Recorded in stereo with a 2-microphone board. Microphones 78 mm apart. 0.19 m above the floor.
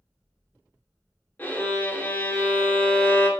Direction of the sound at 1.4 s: 25° left (ahead or behind).